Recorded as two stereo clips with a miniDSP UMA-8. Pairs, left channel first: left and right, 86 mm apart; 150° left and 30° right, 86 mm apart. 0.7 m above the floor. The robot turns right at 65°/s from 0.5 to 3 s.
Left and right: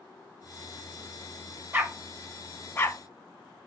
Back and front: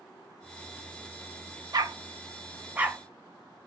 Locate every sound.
1.7 s a dog barking: 35° right, 0.5 m; by 3.7 s 50° left, 0.5 m